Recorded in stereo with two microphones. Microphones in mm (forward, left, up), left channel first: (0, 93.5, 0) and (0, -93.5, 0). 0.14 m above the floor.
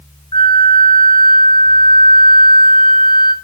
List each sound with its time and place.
0.3 s a flute: 25° left (ahead or behind), 0.7 m